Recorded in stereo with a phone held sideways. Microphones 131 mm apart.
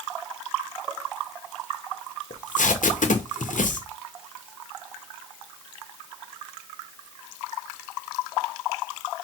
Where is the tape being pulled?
80° left, 0.8 m.